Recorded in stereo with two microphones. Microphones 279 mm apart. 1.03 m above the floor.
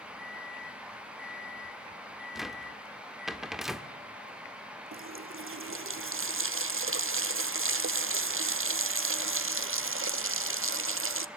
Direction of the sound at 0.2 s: Centre (ahead or behind).